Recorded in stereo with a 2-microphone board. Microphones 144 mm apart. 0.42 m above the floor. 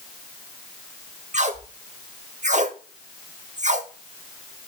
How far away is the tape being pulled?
About 0.9 m.